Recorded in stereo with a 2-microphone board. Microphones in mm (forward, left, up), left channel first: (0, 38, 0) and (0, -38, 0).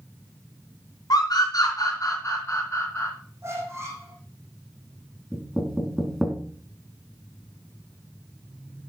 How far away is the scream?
About 4 m.